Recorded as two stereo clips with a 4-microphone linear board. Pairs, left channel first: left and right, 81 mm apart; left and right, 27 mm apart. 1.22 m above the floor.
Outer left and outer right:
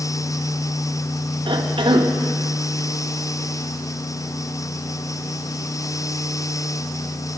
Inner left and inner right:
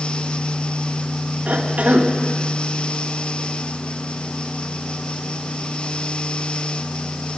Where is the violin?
No violin in this recording.